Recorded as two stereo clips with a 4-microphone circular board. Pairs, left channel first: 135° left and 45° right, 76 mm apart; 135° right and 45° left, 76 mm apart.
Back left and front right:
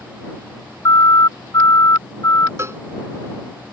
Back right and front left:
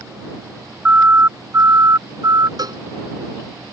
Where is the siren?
110° left; by 2.5 s 80° left.